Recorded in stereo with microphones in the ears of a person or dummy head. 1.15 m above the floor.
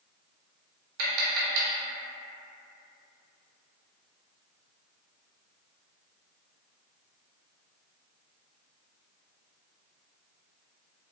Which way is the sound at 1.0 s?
75° right (ahead or behind).